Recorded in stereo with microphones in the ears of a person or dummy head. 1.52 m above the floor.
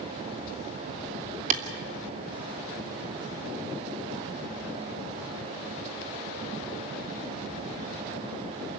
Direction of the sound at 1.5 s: 40° right (ahead or behind).